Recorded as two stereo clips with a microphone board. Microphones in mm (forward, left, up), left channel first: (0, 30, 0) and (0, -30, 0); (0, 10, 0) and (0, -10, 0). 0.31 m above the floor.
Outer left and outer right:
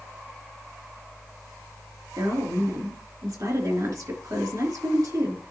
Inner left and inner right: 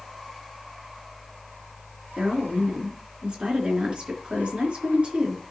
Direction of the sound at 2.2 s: 60° right (ahead or behind).